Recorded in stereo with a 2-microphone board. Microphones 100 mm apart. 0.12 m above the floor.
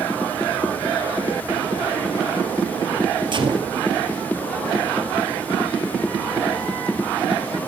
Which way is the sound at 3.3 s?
50° right (ahead or behind).